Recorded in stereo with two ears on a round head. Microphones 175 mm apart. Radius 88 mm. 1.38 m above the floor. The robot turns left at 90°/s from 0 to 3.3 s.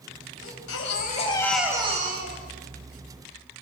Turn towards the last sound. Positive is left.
turn(degrees=-155)